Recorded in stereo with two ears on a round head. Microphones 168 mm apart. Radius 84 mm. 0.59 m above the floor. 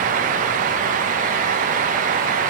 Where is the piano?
I don't hear a piano.